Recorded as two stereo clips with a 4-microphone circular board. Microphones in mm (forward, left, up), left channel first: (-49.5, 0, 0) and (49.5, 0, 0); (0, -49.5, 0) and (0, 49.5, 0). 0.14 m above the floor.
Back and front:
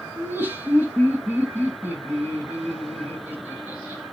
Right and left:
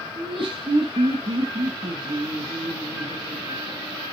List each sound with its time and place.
0.2 s laughter: 70° left, 4.5 m